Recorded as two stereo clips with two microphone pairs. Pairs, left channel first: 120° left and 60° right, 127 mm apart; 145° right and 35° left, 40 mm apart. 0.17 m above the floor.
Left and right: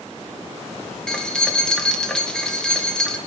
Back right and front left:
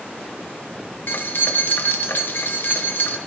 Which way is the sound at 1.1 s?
160° right.